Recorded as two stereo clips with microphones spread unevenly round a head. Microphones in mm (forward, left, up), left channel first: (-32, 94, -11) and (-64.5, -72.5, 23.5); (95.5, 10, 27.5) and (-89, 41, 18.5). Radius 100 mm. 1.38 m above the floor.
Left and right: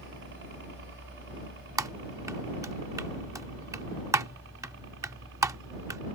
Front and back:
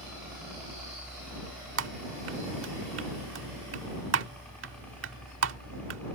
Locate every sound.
0.0 s a helicopter: 105° right; by 6.2 s 90° right
1.8 s typing on a keyboard: 165° right